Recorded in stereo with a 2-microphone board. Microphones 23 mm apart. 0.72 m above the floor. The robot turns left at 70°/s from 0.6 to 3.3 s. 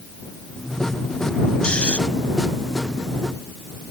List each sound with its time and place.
1.6 s snoring: 55° left (ahead or behind); by 2.0 s 75° left (ahead or behind)